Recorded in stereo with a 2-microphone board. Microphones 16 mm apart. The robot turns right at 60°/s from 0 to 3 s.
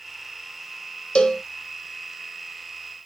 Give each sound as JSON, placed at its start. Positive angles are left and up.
{"t": 1.1, "sound": "a cowbell", "side_deg": 70, "distance_m": 0.5}